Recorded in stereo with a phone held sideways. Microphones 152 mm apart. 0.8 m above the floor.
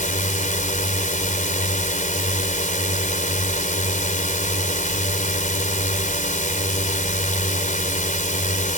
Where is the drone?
60° left (ahead or behind).